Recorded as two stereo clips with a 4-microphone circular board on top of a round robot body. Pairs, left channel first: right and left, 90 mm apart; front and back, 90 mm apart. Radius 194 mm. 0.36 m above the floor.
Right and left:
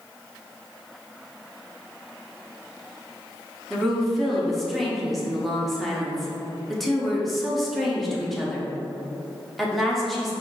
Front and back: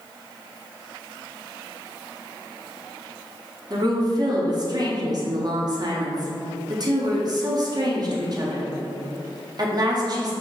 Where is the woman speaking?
Straight behind, 1.3 m.